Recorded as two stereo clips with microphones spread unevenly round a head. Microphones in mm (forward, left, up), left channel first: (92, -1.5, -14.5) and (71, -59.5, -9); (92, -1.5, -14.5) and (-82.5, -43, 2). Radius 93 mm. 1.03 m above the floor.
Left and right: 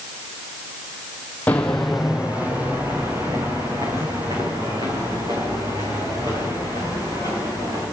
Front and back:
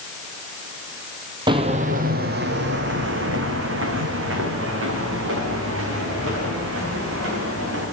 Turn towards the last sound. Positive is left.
turn(degrees=-160)